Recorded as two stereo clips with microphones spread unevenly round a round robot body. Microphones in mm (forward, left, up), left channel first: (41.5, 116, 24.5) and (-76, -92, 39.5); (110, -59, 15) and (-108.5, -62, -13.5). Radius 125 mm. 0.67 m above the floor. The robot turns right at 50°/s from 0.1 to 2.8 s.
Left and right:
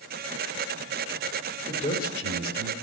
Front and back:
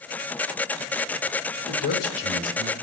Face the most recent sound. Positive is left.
turn(degrees=50)